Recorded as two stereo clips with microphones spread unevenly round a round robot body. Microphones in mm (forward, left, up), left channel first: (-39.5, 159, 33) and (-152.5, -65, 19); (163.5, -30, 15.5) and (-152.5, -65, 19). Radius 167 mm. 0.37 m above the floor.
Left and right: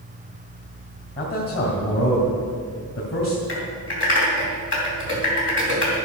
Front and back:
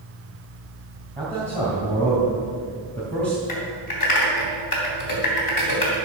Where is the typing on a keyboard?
20° left, 3 m.